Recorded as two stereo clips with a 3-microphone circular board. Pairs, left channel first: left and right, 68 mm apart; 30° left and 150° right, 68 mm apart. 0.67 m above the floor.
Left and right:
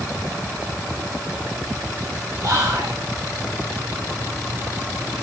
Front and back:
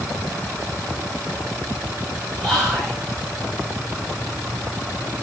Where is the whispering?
65° right, 3.5 m.